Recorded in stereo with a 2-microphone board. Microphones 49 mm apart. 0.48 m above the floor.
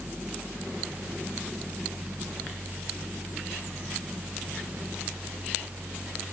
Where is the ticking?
No ticking in this recording.